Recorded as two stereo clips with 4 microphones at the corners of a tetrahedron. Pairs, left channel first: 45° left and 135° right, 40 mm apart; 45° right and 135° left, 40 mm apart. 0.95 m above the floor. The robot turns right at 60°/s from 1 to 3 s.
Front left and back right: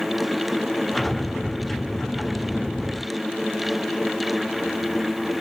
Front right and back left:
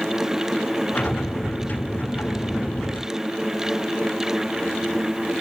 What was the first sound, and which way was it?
Only background noise.